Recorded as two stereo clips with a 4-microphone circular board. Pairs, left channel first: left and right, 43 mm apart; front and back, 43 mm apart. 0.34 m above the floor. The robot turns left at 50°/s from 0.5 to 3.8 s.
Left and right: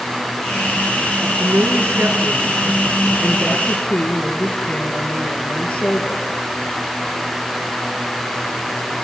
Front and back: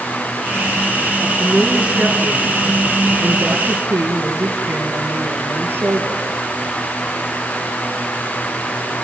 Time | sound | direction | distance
1.2 | a woman speaking | 80° right | 4.5 m